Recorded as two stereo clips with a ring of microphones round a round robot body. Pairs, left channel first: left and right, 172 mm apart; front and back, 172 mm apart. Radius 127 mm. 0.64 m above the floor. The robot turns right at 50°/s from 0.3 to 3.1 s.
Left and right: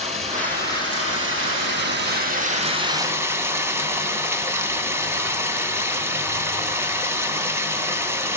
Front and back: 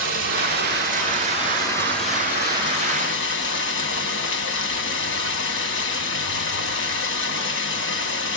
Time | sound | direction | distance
0.0 | running water | 155° right | 2.5 m